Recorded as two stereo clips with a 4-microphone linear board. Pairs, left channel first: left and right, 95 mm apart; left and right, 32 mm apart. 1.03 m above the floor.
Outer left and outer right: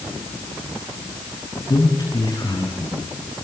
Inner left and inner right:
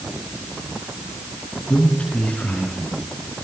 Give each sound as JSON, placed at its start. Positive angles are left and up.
{"t": 1.7, "sound": "a man speaking", "side_deg": 45, "distance_m": 8.5}